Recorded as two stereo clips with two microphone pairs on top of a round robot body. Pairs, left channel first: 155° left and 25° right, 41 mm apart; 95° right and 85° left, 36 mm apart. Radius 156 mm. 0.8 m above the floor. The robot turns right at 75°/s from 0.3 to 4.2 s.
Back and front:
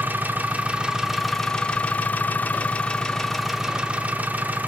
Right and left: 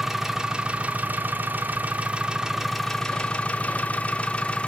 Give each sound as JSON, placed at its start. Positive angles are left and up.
{"t": 0.0, "sound": "an engine running", "azimuth_deg": 0, "distance_m": 0.8}